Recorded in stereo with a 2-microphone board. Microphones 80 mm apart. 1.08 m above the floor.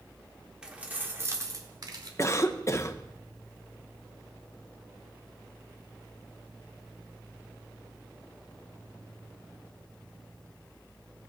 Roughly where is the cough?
Left.